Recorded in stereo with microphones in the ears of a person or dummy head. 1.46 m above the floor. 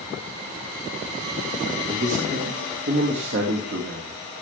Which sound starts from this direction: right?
A man speaking, at 1.9 s.